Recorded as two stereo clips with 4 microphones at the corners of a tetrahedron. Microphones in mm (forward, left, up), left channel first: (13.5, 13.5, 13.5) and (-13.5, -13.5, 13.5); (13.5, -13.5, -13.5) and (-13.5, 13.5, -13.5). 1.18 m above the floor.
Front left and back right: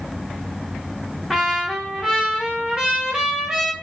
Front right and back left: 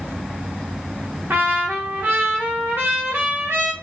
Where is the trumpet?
150° left, 0.8 m.